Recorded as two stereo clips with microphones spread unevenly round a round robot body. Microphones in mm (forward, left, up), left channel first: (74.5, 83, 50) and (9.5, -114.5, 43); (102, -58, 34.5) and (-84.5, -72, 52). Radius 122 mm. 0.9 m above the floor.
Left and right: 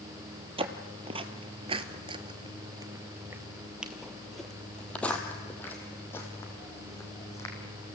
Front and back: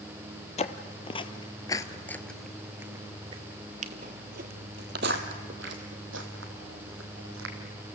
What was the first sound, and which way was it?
Footsteps, 50° right.